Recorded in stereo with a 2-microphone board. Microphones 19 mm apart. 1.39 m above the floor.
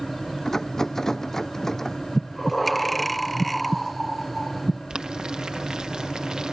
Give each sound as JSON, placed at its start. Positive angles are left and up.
{"t": 0.5, "sound": "a rattle", "side_deg": 20}
{"t": 2.1, "sound": "breathing", "side_deg": 5}
{"t": 4.9, "sound": "boiling", "side_deg": -45}